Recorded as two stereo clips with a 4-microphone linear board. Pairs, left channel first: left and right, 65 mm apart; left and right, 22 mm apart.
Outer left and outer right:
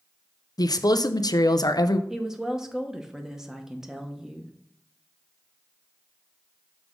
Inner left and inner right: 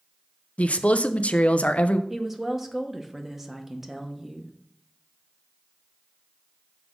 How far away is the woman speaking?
About 0.9 m.